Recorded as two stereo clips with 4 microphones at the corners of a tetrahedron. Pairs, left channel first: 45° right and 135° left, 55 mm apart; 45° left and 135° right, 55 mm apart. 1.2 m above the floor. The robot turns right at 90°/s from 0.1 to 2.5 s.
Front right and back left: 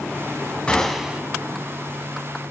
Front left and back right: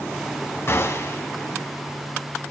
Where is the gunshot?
20° left, 1.7 m; by 1.2 s 70° left, 1.7 m.